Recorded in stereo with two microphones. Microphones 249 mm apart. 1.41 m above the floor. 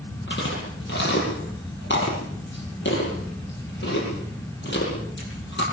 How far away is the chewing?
About 9.5 m.